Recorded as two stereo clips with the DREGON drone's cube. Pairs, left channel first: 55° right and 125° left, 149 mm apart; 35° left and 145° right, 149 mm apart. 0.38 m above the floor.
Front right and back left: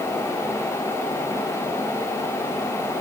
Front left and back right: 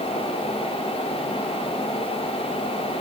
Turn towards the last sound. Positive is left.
No sound to turn to.